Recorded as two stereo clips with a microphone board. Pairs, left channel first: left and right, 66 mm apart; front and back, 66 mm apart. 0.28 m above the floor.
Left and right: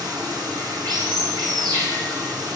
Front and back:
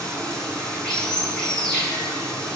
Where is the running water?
75° right, 5.5 m.